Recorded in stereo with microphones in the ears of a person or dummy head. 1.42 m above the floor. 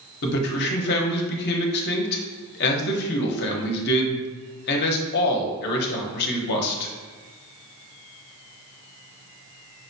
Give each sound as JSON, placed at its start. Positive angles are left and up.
{"t": 0.2, "sound": "a man speaking", "side_deg": 55, "distance_m": 0.8}